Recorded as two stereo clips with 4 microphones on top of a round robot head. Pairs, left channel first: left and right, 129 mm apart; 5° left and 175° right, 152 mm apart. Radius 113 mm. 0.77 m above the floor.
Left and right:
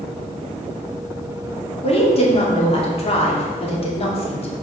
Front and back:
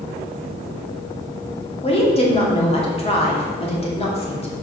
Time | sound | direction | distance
1.8 | a woman speaking | 55° left | 2.5 m